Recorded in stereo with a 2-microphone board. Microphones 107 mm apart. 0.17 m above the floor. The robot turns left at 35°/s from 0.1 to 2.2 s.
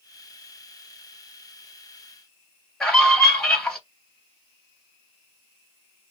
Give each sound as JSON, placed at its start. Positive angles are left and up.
{"t": 2.8, "sound": "a scream", "side_deg": 5, "distance_m": 2.5}